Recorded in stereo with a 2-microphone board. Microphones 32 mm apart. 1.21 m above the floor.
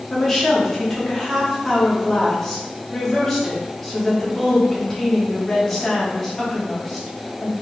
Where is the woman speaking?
10° left (ahead or behind), 1.7 m.